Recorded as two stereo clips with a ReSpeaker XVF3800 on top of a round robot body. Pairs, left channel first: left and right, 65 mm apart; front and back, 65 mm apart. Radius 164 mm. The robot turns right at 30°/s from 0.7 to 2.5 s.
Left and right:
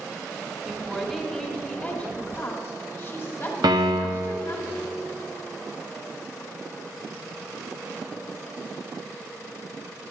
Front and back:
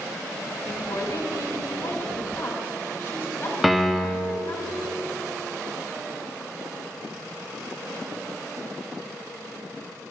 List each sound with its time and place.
0.7 s a woman speaking: 5° right, 1.8 m; by 4.6 s 45° left, 1.8 m
3.6 s a piano: 90° right, 0.6 m